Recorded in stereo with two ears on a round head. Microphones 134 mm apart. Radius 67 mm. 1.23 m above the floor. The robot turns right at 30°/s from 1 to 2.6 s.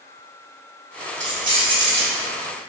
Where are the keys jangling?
55° right (ahead or behind), 1.5 m; by 2.1 s 75° right (ahead or behind), 1.5 m.